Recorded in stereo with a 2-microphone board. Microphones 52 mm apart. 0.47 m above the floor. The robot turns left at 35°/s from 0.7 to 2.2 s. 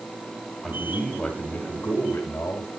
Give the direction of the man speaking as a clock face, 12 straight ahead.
6 o'clock.